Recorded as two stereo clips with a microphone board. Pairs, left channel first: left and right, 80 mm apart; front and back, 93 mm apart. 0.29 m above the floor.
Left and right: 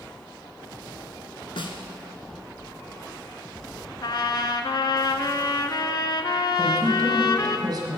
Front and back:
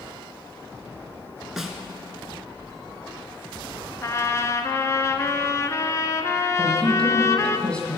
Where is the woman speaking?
65° right, 1.5 m.